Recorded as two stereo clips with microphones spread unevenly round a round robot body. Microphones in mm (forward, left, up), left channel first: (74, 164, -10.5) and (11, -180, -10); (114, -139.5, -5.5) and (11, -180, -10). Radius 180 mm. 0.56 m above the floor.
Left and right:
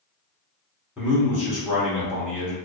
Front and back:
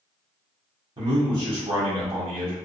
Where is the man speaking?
175° left, 1.1 m.